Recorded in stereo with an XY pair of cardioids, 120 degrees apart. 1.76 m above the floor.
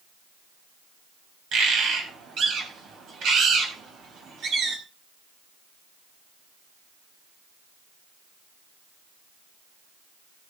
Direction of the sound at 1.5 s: 65° right.